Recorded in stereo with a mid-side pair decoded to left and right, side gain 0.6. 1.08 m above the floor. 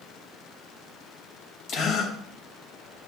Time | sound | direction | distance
1.7 | a gasp | 65° left | 4 m